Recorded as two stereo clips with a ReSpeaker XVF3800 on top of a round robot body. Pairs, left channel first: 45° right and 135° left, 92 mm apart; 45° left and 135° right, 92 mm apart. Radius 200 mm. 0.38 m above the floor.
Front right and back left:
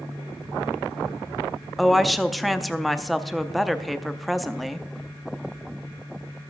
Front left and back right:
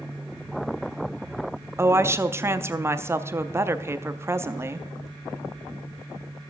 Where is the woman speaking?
135° right, 0.9 m.